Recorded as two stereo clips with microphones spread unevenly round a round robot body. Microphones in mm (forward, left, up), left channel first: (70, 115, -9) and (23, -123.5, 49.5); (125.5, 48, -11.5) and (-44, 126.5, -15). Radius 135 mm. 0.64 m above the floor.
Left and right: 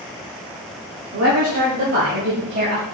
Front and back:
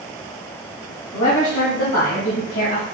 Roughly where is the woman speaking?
Right.